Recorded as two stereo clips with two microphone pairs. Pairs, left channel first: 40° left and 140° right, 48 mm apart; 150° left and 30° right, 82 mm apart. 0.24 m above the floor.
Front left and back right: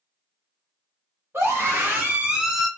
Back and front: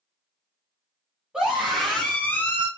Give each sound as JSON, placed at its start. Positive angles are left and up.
{"t": 1.3, "sound": "a scream", "azimuth_deg": -110, "distance_m": 1.6}